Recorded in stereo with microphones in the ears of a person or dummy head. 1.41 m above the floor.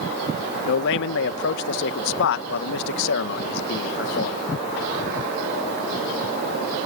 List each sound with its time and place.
0.7 s a man speaking: 70° left (ahead or behind)